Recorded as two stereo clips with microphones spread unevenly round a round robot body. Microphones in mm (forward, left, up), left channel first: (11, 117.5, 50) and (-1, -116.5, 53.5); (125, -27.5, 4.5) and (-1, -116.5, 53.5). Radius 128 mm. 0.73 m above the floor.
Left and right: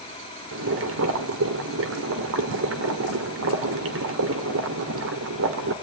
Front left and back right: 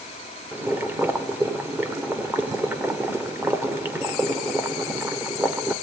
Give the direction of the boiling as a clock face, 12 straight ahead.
2 o'clock.